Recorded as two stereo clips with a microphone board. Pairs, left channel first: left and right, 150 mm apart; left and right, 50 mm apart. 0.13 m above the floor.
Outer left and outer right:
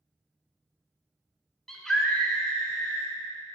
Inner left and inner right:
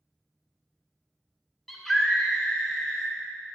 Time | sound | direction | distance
1.7 | a scream | 5° left (ahead or behind) | 1.1 m